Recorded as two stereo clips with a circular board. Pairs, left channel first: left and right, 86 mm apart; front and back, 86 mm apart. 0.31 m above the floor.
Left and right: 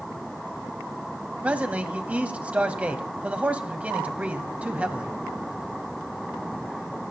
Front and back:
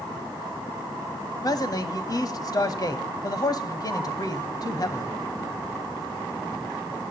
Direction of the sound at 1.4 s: 20° right.